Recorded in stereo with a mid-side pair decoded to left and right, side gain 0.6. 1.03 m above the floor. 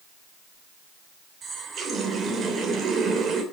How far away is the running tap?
About 3 m.